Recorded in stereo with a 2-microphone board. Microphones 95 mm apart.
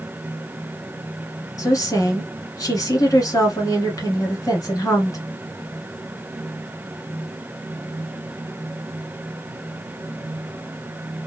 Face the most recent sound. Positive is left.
turn(degrees=35)  # may be behind; listen again after turning